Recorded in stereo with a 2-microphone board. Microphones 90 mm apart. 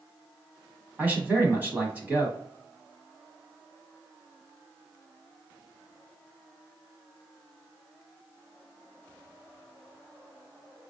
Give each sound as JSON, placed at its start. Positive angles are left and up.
{"t": 1.0, "sound": "a man speaking", "side_deg": -20, "distance_m": 1.1}